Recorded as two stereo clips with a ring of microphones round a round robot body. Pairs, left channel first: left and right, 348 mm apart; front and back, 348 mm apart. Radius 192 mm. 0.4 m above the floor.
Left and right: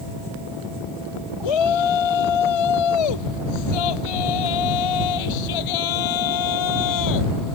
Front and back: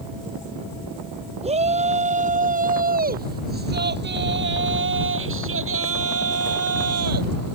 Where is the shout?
105° left; by 7.5 s 135° left.